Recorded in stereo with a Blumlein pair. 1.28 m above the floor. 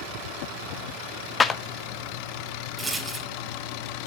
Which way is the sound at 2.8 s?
10° right.